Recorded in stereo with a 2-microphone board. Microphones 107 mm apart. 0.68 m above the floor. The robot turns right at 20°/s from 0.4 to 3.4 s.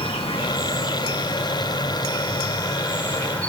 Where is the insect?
110° left, 2 m; by 3.5 s 170° left, 2 m.